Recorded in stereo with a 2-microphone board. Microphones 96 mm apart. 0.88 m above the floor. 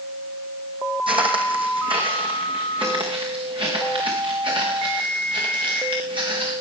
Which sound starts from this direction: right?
Footsteps, at 1.1 s.